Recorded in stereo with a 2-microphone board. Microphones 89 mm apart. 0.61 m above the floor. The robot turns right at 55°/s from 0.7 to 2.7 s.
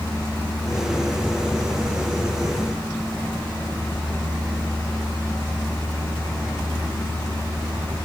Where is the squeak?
No squeak in this recording.